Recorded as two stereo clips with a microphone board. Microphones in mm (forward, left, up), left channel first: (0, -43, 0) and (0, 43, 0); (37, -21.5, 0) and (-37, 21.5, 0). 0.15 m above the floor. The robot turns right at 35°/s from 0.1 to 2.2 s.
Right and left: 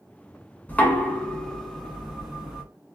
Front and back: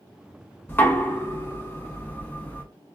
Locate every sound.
0.7 s knocking: 45° right, 0.9 m; by 2.6 s 10° left, 0.9 m